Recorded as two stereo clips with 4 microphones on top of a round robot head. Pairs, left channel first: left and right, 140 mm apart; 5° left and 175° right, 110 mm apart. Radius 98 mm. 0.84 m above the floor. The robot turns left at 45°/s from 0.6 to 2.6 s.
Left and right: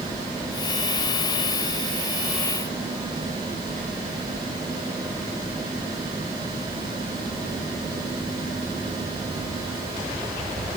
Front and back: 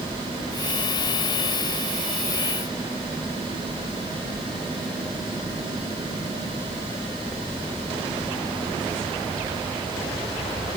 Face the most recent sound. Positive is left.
No sound to turn to.